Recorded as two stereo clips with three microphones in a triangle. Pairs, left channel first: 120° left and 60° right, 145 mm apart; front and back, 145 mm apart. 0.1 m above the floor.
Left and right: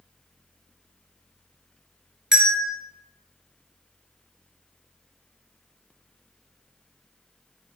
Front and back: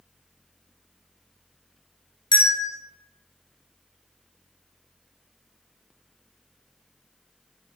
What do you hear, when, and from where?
2.3 s a bell: 20° left, 1.5 m